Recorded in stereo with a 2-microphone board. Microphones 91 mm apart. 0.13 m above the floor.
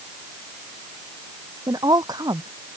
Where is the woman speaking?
45° right (ahead or behind).